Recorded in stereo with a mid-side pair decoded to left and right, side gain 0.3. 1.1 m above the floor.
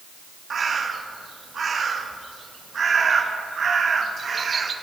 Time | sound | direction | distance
0.5 | a bird | 60° right | 1.2 m